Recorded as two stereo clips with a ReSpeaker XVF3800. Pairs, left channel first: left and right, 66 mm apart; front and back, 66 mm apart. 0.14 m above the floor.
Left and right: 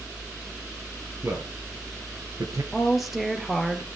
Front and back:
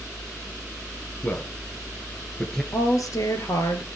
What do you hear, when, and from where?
1.2 s a man speaking: 60° right, 2.5 m; by 2.6 s 80° right, 2.5 m
2.7 s a woman speaking: 5° right, 2.5 m